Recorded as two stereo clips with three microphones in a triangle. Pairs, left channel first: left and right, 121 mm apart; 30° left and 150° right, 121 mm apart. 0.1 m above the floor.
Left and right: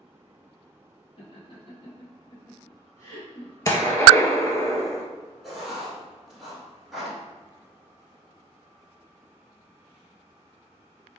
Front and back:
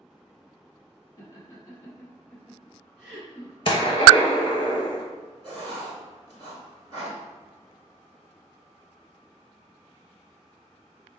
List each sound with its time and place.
1.2 s laughter: 75° left, 1.8 m; by 3.5 s 150° left, 1.5 m
3.6 s a gunshot: 40° left, 0.7 m
5.4 s writing: straight behind, 1.3 m